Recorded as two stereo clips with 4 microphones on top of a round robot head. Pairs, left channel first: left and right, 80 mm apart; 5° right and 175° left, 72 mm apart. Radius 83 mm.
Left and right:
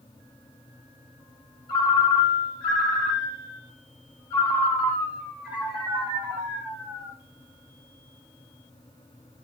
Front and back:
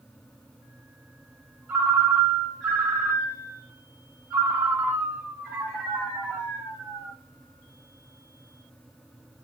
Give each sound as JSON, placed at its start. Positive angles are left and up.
{"t": 1.7, "sound": "a ringtone", "azimuth_deg": 105, "distance_m": 1.1}